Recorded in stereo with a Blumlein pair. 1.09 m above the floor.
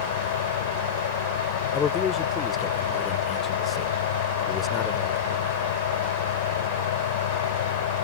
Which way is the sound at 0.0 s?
55° left.